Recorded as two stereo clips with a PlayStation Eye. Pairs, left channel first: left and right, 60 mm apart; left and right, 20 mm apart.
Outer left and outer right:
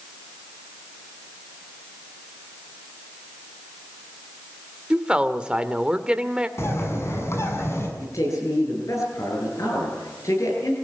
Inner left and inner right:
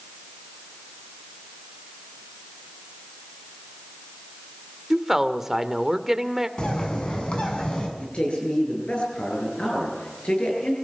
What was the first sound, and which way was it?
A woman speaking, 15° right (ahead or behind).